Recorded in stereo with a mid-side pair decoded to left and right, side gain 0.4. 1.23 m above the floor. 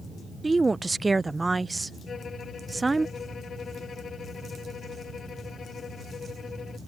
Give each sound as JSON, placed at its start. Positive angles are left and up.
{"t": 0.4, "sound": "a woman speaking", "azimuth_deg": -20}
{"t": 2.1, "sound": "a violin", "azimuth_deg": 50}